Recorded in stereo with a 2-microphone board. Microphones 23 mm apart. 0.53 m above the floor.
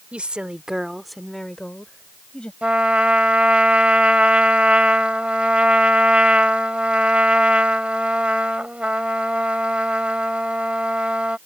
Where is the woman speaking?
55° right (ahead or behind); by 2.5 s 50° left (ahead or behind).